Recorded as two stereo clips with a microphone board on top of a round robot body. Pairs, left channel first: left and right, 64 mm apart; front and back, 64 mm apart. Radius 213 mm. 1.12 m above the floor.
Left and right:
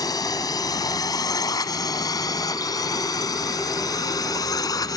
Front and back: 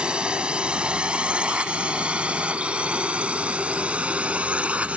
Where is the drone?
105° left; by 5.0 s 110° left.